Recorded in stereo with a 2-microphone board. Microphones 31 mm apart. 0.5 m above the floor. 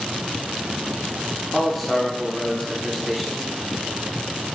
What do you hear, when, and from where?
1.5 s a man speaking: centre (ahead or behind), 1.0 m